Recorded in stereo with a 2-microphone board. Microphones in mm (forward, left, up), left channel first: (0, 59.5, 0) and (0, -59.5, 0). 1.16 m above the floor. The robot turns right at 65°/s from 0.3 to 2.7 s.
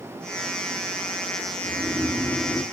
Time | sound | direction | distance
1.6 | snoring | 55° right | 1.2 m